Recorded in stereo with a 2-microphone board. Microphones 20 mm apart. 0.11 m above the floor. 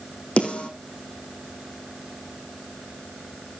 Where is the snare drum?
75° left (ahead or behind), 4 m.